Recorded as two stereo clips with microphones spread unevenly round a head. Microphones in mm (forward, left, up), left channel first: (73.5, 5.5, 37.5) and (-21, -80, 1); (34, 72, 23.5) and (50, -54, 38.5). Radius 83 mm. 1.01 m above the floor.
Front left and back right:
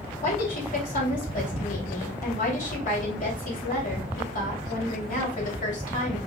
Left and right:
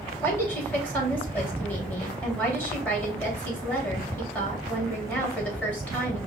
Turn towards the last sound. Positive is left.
turn(degrees=20)